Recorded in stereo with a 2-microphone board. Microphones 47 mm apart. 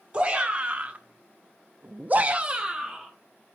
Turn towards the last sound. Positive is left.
turn(degrees=-10)  # may be behind; listen again after turning